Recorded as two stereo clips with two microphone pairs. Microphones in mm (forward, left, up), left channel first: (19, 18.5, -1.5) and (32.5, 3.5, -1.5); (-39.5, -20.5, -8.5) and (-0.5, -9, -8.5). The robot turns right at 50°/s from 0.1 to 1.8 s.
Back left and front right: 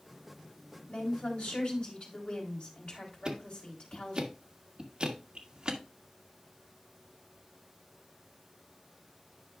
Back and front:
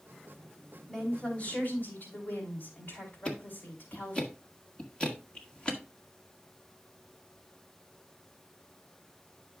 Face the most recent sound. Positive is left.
turn(degrees=-100)